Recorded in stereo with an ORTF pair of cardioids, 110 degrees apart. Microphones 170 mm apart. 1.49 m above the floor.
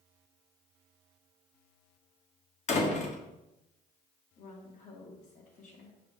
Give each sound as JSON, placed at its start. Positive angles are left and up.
{"t": 2.7, "sound": "a door slam", "azimuth_deg": 40, "distance_m": 1.6}
{"t": 4.4, "sound": "a woman speaking", "azimuth_deg": 45, "distance_m": 1.9}